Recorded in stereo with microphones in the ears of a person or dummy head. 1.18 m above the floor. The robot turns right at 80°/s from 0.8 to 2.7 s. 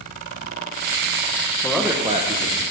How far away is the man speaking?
About 0.5 m.